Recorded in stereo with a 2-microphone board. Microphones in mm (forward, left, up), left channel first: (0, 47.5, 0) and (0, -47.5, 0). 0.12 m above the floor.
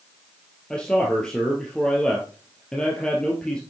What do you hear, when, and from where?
0.7 s a man speaking: 10° left (ahead or behind), 2.5 m